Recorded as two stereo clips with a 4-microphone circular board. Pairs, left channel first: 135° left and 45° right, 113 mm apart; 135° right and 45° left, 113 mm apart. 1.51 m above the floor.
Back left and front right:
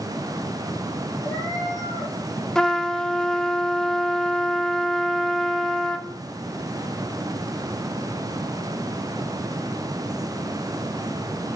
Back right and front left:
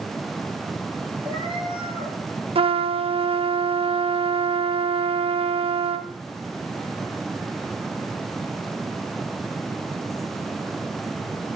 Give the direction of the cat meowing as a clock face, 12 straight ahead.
9 o'clock.